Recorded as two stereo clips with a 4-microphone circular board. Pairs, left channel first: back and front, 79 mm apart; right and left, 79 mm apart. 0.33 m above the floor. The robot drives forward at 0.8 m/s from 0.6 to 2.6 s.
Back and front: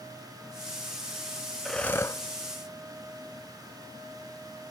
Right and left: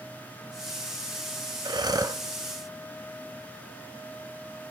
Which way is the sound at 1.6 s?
90° left.